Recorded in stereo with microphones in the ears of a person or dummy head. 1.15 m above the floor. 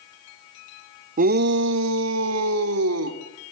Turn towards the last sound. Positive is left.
turn(degrees=-85)